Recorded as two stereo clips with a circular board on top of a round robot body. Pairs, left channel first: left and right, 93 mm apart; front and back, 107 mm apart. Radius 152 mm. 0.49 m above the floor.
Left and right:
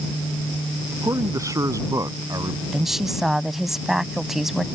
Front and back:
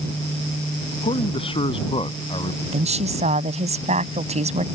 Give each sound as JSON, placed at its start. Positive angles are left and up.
{"t": 0.9, "sound": "a man speaking", "azimuth_deg": -35}
{"t": 2.7, "sound": "a woman speaking", "azimuth_deg": -175}